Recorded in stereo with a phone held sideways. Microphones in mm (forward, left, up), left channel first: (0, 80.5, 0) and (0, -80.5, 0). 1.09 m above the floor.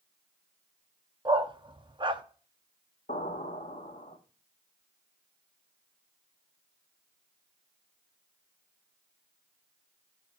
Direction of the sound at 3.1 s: 50° left (ahead or behind).